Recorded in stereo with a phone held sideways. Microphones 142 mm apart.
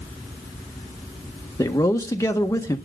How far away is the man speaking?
About 1.5 m.